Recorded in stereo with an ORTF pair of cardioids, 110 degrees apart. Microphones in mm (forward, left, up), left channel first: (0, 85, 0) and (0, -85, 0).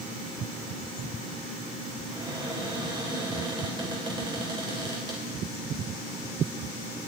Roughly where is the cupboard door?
Ahead right.